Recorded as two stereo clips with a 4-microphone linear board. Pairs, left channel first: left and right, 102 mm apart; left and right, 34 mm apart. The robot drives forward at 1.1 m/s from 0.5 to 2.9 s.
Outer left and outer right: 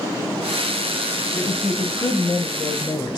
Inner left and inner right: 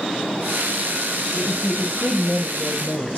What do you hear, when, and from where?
1.4 s a woman speaking: 25° left (ahead or behind), 2.0 m; by 3.2 s 45° left (ahead or behind), 1.3 m